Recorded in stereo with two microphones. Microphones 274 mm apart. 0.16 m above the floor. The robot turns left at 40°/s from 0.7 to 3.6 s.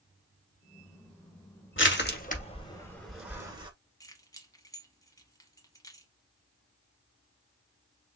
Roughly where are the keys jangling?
Centre.